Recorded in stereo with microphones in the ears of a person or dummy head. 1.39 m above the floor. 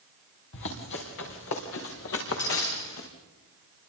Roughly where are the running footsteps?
Left.